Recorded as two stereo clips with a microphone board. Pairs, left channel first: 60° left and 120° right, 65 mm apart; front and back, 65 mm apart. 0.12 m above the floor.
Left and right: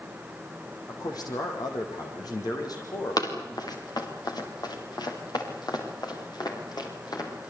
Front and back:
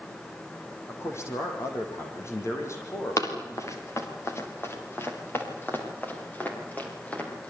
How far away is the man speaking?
About 6.5 m.